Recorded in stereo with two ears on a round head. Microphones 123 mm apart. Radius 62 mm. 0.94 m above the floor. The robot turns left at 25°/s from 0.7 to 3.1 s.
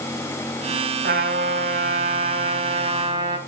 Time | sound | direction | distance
1.0 | a trumpet | 90° right | 2.5 m